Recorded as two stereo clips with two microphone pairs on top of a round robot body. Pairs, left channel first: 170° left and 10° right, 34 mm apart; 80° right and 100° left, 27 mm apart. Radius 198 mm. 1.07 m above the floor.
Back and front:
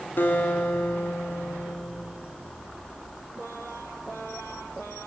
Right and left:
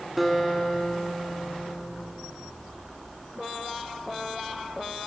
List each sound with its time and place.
0.2 s a guitar: 170° right, 3 m